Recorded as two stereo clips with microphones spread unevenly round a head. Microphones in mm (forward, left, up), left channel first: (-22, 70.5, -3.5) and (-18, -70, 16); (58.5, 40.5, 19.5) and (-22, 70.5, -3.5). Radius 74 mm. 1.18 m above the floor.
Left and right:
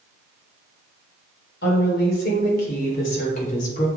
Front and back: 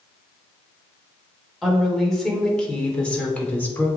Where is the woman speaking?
70° left, 3.5 m; by 3.9 s 45° left, 3 m.